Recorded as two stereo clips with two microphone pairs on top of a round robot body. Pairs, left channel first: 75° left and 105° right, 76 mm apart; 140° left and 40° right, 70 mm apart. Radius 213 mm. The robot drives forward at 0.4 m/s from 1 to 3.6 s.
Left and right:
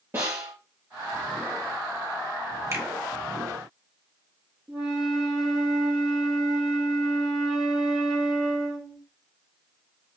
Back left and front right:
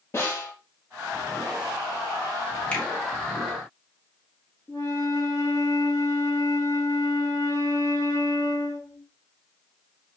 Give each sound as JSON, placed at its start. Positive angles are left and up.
{"t": 0.1, "sound": "a snare drum", "azimuth_deg": -170, "distance_m": 5.0}
{"t": 2.7, "sound": "a finger snap", "azimuth_deg": -150, "distance_m": 2.5}
{"t": 4.7, "sound": "a flute", "azimuth_deg": -175, "distance_m": 4.0}